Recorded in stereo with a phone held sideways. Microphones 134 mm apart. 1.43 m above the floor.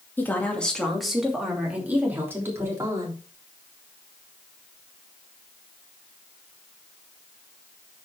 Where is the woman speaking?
15° left (ahead or behind), 2.5 m; by 3.2 s 25° right (ahead or behind), 3.5 m.